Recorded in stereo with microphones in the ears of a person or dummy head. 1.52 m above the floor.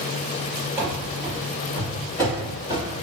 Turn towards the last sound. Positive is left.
turn(degrees=25)  # may be behind; listen again after turning